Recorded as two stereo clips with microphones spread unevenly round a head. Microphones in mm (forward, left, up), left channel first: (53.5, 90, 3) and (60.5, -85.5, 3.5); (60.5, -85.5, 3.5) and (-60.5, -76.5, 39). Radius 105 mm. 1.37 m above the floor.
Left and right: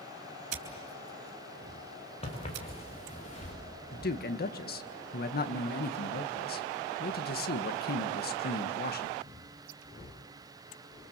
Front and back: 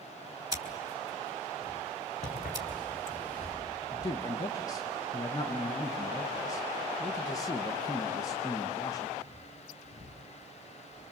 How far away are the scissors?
About 4 m.